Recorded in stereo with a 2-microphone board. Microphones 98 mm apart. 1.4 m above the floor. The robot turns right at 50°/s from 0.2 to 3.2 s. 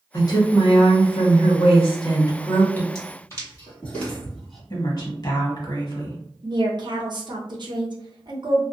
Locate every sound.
0.1 s a woman speaking: 35° left, 1.0 m; by 2.9 s 165° left, 1.0 m
3.0 s footsteps: 35° left (ahead or behind), 1.7 m; by 4.6 s centre (ahead or behind), 1.5 m
4.7 s a woman speaking: 45° left (ahead or behind), 1.2 m
6.4 s a woman speaking: 50° right (ahead or behind), 0.7 m